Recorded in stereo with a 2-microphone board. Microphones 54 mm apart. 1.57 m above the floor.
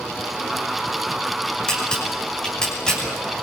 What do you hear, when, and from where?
1.7 s a camera shutter: 15° left (ahead or behind), 7 m